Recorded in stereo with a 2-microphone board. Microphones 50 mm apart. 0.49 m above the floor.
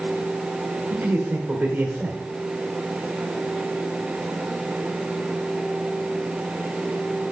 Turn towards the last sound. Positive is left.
turn(degrees=-40)  # may be behind; listen again after turning